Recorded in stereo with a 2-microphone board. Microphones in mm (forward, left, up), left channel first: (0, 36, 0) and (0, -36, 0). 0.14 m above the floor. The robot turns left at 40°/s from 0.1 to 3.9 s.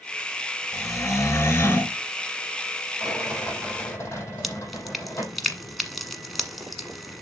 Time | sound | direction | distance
0.7 | snoring | 85° left | 1.0 m
3.0 | a rattle | straight behind | 4 m
4.4 | dripping | centre (ahead or behind) | 1.2 m